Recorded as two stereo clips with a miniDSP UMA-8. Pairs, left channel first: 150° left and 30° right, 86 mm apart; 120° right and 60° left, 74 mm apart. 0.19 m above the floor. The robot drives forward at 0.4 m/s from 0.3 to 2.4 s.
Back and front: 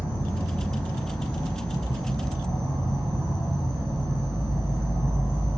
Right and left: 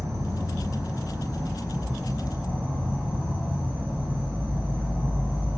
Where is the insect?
105° left, 2 m; by 5.6 s 125° left, 2.5 m.